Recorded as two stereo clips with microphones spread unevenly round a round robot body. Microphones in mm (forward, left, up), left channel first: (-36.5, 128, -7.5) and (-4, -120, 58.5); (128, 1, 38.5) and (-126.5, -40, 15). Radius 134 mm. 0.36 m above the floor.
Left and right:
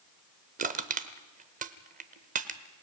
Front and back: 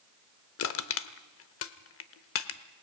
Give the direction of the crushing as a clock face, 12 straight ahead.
1 o'clock.